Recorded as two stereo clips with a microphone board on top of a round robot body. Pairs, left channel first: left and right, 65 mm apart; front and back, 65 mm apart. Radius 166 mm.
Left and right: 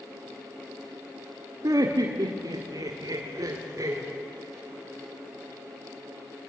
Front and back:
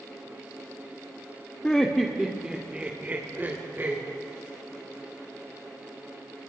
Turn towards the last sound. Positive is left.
turn(degrees=-125)